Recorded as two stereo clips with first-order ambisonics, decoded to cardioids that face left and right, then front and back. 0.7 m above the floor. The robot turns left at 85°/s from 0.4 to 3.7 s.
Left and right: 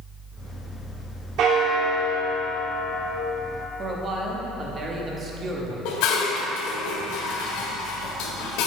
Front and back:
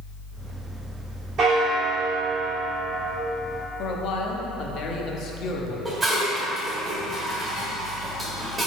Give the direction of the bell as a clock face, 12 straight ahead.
4 o'clock.